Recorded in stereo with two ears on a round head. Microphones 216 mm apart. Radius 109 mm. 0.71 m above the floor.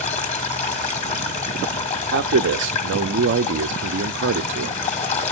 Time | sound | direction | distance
0.0 | running water | 30° left (ahead or behind) | 1.5 m
2.1 | a man speaking | 50° right (ahead or behind) | 0.7 m